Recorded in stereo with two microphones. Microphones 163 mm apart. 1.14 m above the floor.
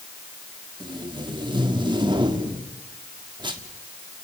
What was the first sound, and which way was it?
Tape being pulled, 30° right (ahead or behind).